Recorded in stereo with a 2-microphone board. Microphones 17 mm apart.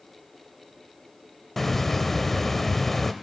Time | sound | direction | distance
1.6 | a hiss | 20° left (ahead or behind) | 0.5 m